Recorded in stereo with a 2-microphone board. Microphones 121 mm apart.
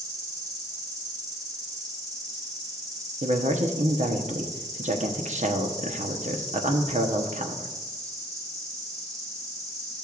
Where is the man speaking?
75° right (ahead or behind), 1.0 m.